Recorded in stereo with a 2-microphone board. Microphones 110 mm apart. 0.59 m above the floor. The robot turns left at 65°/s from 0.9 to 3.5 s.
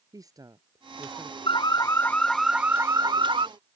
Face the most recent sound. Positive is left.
turn(degrees=-70)